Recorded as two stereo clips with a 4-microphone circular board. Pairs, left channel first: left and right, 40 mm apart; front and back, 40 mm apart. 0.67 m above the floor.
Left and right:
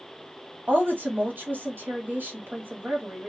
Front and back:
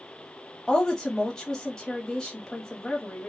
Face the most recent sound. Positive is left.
turn(degrees=-75)